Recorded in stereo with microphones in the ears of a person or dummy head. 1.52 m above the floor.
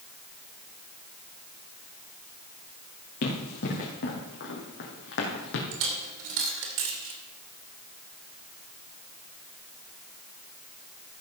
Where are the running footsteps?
55° left (ahead or behind), 4 m; by 5.6 s 65° left (ahead or behind), 3.5 m.